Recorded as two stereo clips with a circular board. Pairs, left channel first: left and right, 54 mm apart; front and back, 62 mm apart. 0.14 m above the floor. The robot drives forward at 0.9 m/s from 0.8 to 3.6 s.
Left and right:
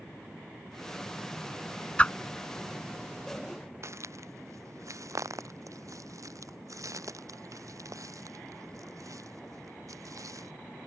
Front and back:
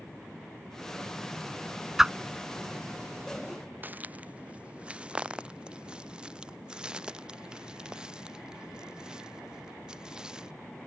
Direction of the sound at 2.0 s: 105° left.